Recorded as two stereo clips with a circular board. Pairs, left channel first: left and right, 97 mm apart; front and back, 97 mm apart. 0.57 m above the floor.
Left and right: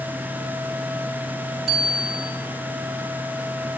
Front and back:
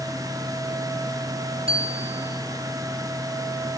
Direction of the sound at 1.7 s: 175° left.